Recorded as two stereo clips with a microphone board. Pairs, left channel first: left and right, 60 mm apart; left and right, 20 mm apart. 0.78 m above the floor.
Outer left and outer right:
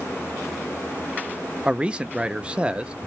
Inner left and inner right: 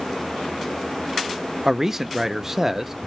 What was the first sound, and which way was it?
A man speaking, 15° right (ahead or behind).